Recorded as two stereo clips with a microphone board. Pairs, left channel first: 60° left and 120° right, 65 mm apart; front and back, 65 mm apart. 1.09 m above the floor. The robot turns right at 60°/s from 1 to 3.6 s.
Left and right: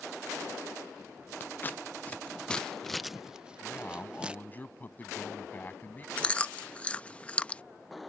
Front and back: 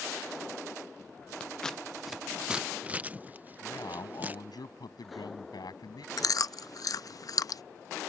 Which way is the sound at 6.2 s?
5° right.